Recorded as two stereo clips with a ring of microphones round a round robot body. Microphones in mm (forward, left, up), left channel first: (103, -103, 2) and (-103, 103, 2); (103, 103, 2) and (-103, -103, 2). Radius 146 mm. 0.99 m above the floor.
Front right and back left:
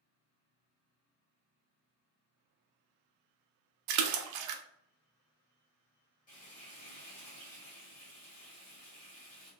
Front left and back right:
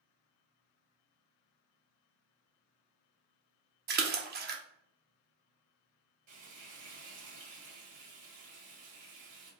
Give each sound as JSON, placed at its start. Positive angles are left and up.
{"t": 3.9, "sound": "a splash", "azimuth_deg": 165, "distance_m": 0.5}
{"t": 6.3, "sound": "frying", "azimuth_deg": -105, "distance_m": 1.8}